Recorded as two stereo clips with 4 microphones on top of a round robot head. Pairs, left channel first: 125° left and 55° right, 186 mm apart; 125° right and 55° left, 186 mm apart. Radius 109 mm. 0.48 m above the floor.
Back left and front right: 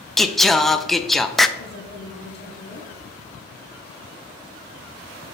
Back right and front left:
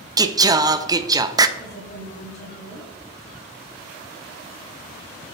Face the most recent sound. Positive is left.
turn(degrees=180)